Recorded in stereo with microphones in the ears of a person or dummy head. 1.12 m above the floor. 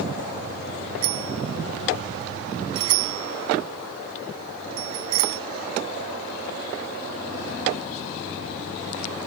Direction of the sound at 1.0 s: 85° right.